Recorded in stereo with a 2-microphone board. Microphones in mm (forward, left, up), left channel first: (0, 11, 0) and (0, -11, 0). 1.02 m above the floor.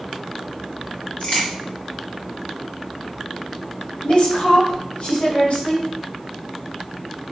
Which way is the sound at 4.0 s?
75° left (ahead or behind).